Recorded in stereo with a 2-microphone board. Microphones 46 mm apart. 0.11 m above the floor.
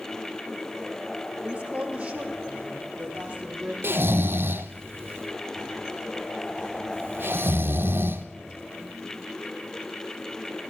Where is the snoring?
55° right (ahead or behind), 1.0 m.